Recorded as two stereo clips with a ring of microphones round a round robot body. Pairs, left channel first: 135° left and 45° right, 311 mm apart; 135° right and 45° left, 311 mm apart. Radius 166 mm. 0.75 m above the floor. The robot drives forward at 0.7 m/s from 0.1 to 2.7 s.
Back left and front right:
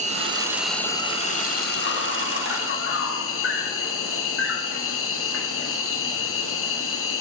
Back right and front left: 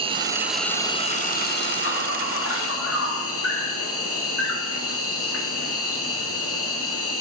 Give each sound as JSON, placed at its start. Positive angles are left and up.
{"t": 0.0, "sound": "an insect", "azimuth_deg": -5, "distance_m": 0.9}